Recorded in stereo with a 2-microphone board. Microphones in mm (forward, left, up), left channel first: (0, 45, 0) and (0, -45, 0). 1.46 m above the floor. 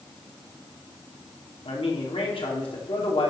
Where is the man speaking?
80° left, 3 m.